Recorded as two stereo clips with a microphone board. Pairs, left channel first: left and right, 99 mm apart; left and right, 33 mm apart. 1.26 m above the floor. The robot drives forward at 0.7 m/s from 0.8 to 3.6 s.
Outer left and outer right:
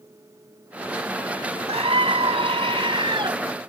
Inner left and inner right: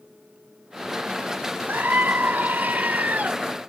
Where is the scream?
80° right; by 3.4 s 55° right (ahead or behind).